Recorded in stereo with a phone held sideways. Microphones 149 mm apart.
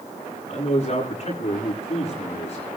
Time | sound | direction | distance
0.5 | a man speaking | 45° left (ahead or behind) | 8.5 m